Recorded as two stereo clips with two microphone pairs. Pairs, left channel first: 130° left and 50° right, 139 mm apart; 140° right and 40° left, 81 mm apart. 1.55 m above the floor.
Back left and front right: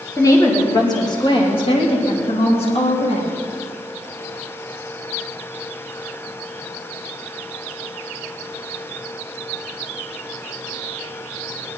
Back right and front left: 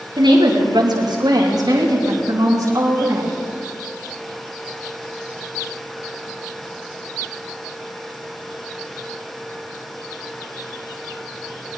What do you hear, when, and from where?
0.2 s a woman speaking: 60° left, 3 m; by 3.3 s 90° left, 4 m